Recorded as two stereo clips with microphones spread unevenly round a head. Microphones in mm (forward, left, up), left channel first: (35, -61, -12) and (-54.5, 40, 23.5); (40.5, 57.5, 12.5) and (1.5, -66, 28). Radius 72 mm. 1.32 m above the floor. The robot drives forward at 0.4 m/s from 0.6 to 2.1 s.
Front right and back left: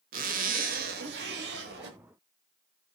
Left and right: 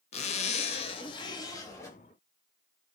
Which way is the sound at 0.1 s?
95° left.